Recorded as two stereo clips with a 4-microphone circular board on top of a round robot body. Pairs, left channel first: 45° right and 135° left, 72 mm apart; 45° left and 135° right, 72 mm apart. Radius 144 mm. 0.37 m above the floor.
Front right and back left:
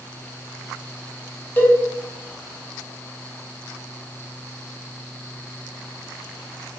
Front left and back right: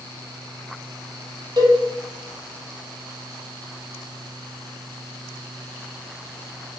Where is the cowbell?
110° right, 3 m.